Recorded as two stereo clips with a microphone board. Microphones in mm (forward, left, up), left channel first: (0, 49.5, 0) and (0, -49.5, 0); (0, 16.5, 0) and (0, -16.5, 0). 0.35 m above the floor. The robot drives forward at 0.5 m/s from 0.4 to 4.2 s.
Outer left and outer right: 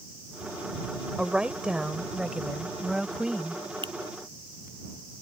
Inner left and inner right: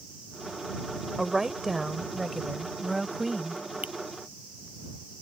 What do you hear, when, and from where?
1.2 s a woman speaking: 10° right (ahead or behind); by 3.6 s 5° right (ahead or behind)
3.8 s a finger snap: 55° right (ahead or behind)